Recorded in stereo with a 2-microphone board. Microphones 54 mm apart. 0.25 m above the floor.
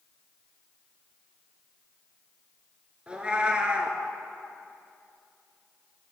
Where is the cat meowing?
20° right (ahead or behind), 0.8 m.